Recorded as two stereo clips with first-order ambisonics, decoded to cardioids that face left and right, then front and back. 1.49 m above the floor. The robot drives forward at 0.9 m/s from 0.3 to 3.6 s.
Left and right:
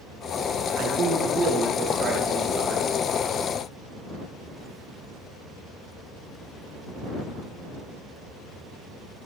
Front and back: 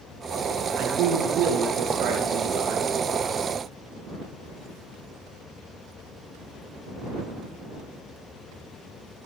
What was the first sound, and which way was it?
A man speaking, 135° right.